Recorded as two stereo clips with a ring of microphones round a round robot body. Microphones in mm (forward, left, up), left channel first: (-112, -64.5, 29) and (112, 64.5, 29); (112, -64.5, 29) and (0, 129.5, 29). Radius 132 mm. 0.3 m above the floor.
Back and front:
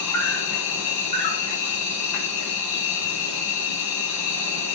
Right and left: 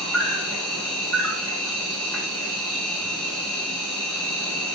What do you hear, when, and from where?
0.0 s an insect: 145° right, 4 m